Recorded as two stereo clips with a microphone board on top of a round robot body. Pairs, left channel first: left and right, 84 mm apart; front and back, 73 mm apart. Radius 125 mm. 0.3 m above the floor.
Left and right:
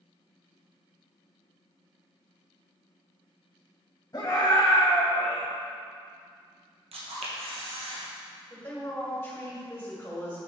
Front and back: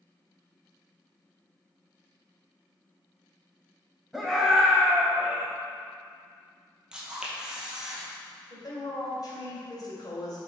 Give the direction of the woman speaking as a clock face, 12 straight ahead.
11 o'clock.